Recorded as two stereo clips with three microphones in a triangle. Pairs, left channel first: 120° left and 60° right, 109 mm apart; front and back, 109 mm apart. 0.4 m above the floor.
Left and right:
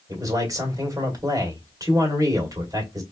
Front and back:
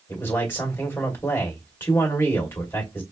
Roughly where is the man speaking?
Ahead right.